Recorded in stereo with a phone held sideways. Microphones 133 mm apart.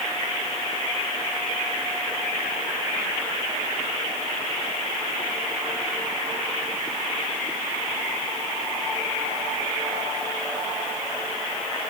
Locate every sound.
Only background noise.